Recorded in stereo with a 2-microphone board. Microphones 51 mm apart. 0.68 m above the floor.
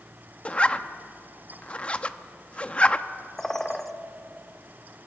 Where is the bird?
5° left (ahead or behind), 1.0 m.